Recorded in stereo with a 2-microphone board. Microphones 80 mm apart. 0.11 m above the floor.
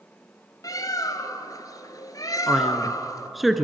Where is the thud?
I don't hear a thud.